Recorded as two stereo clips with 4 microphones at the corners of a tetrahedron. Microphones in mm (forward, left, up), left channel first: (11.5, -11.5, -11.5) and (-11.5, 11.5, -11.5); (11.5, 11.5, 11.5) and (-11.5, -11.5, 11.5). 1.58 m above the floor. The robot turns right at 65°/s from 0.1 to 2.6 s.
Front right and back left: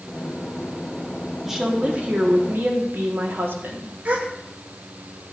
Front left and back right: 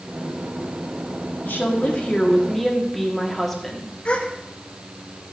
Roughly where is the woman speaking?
Ahead left.